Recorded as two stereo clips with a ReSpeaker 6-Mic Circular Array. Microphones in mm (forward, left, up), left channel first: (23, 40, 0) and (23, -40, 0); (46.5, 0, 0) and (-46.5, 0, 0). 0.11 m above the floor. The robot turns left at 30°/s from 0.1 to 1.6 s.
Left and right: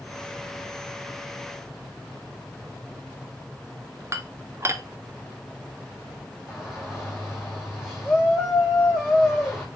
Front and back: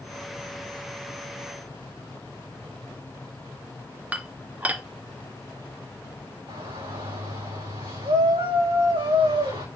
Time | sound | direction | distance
4.1 | dishes clattering | 115° right | 1.0 m
6.5 | a shout | 170° right | 6.5 m